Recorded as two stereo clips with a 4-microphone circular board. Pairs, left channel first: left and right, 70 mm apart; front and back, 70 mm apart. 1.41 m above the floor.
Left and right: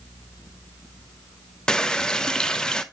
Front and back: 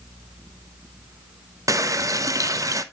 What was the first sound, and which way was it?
A running tap, 170° left.